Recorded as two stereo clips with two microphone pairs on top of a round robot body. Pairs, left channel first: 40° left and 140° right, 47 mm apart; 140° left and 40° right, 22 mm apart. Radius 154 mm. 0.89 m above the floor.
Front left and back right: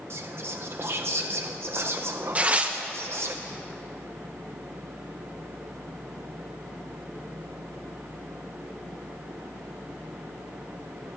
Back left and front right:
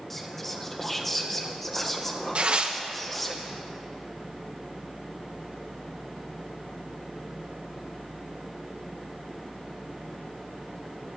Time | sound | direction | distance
0.1 | whispering | 150° right | 0.6 m
2.4 | tearing paper | 80° right | 0.9 m